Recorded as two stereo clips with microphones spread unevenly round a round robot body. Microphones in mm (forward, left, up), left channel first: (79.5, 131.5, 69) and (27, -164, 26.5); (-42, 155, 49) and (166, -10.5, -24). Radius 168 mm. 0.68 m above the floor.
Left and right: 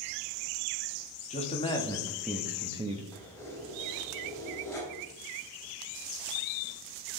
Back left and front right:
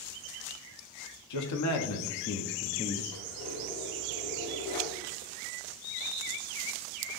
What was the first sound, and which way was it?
A man speaking, 150° left.